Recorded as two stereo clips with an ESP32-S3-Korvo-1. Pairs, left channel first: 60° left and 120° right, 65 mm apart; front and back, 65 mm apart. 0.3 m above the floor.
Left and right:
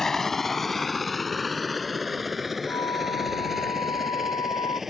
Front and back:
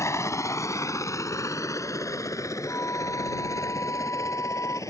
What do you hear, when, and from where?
0.0 s a helicopter: 25° right; by 4.9 s 35° right
2.7 s a flute: 50° left